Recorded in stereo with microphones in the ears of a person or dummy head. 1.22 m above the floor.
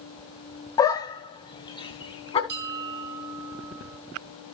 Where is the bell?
50° right (ahead or behind), 1.9 m.